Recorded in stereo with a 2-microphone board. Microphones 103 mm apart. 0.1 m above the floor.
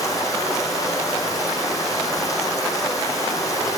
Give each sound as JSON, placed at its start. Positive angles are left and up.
{"t": 0.0, "sound": "running water", "side_deg": 35, "distance_m": 5.0}